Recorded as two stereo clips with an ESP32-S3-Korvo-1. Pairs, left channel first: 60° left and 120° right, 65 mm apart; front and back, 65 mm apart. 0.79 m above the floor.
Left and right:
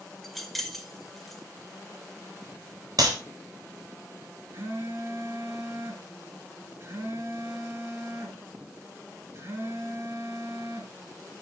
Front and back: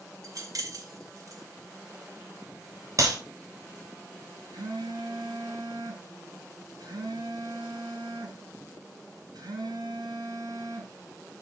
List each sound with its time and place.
0.2 s keys jangling: 150° left, 2 m
3.0 s a clap: 145° right, 3.5 m
4.5 s a phone buzzing: 170° right, 6.5 m